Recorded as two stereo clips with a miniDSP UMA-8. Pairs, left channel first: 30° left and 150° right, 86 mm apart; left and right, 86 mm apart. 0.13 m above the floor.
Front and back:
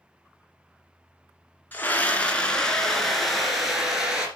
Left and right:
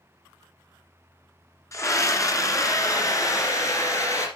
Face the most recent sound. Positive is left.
turn(degrees=130)